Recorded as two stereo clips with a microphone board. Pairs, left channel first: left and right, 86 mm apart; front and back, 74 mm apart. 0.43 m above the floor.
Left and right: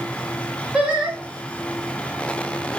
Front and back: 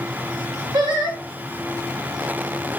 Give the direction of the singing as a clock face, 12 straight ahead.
6 o'clock.